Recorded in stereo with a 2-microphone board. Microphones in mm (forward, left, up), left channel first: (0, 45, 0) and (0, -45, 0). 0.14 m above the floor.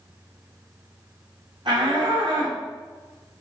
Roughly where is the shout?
Right.